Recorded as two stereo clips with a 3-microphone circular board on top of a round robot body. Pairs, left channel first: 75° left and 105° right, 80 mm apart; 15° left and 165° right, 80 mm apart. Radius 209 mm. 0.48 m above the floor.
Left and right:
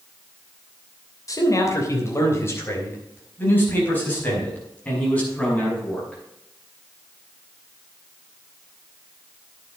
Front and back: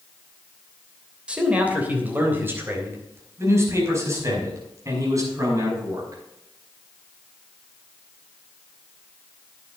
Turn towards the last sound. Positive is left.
turn(degrees=150)